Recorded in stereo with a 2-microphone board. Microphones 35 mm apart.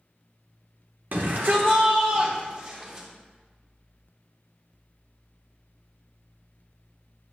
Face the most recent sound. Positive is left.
turn(degrees=-40)  # may be behind; listen again after turning